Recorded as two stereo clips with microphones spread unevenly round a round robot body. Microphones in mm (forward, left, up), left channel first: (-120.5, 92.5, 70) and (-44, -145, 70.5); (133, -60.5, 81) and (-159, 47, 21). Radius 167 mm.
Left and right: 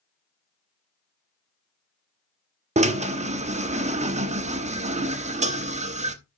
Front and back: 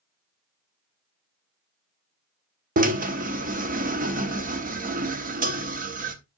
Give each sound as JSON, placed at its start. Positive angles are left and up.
{"t": 2.8, "sound": "a drill", "azimuth_deg": -135, "distance_m": 1.0}